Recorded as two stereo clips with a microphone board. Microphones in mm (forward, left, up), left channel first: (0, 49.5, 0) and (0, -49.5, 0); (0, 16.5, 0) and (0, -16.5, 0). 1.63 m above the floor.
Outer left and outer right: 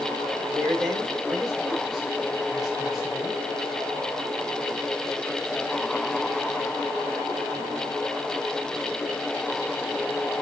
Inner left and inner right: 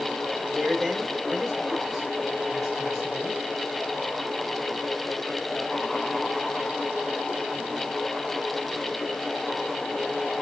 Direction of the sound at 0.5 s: Centre (ahead or behind).